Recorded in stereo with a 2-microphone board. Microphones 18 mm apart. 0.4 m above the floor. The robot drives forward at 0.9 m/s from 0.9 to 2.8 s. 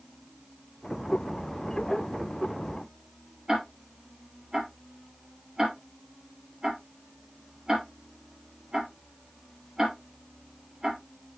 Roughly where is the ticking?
Right.